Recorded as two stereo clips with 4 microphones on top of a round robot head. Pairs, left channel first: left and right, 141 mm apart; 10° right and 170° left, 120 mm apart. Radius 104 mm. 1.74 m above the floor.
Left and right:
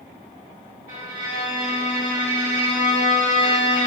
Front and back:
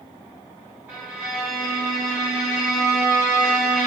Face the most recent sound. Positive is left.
turn(degrees=-115)